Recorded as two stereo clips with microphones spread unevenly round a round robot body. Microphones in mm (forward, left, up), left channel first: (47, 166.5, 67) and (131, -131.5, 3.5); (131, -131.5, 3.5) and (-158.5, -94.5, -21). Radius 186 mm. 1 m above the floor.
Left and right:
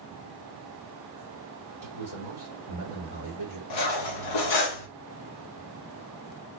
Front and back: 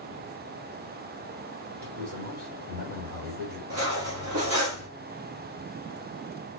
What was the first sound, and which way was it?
A man speaking, 120° left.